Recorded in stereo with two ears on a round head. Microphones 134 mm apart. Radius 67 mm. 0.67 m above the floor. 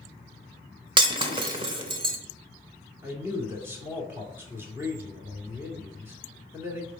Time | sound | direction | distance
1.0 | breaking glass | 35° right (ahead or behind) | 1.0 m
3.0 | a man speaking | 15° right (ahead or behind) | 2 m